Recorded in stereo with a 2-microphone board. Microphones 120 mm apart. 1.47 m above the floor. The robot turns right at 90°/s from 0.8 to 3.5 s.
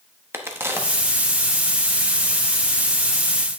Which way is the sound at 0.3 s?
20° right (ahead or behind).